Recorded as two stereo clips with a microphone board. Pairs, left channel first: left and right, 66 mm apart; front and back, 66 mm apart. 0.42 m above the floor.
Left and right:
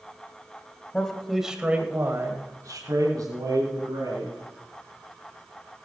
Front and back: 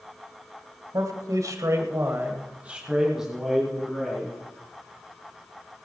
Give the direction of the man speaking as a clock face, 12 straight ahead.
6 o'clock.